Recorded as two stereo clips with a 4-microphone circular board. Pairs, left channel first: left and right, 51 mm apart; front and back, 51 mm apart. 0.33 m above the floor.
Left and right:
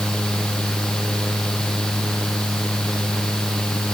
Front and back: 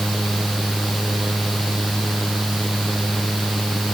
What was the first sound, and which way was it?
Only background noise.